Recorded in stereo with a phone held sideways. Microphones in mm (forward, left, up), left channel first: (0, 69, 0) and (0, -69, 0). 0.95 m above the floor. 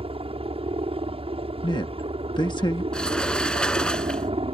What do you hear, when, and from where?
0.0 s a helicopter: 45° right (ahead or behind)
1.6 s a man speaking: 30° left (ahead or behind)
2.9 s a sliding door: 5° left (ahead or behind)